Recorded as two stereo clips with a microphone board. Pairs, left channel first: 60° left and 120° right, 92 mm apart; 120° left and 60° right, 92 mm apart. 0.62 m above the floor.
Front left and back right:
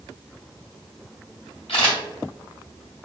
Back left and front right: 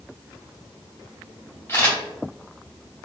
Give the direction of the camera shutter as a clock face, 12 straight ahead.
10 o'clock.